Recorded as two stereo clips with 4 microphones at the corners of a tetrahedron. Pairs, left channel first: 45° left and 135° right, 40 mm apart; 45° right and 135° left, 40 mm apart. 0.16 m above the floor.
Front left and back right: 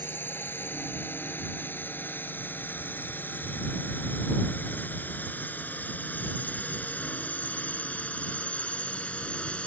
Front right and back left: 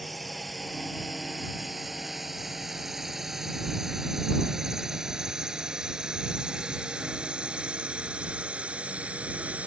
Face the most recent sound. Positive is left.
turn(degrees=95)